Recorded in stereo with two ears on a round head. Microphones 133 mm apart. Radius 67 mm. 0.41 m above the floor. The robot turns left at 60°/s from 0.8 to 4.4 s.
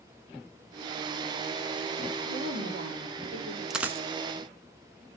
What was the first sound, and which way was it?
A woman speaking, 80° right.